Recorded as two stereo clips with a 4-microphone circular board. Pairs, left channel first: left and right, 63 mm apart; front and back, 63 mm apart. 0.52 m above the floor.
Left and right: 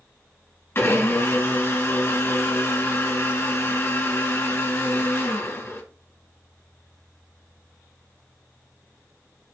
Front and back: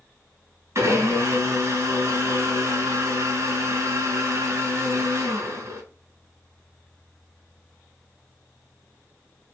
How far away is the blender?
About 1.7 m.